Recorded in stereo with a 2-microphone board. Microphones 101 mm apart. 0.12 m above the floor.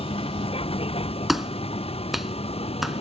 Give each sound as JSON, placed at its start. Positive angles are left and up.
{"t": 0.0, "sound": "a vehicle", "side_deg": 70}
{"t": 1.3, "sound": "a clap", "side_deg": 0}